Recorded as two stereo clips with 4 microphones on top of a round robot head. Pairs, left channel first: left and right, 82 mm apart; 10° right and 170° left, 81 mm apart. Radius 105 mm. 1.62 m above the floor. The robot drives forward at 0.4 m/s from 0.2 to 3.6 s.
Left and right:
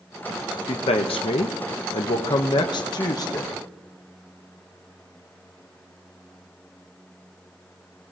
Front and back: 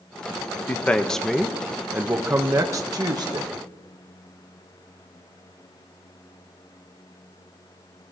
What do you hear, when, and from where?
0.7 s a man speaking: 60° left, 0.8 m; by 3.5 s 140° left, 1.1 m